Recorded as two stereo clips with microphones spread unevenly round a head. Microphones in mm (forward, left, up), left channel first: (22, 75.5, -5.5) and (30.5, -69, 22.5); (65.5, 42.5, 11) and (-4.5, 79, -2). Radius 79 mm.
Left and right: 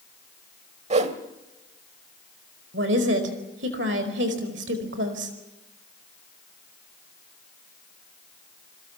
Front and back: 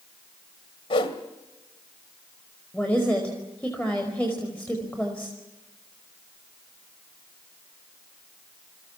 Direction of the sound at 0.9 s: 45° right.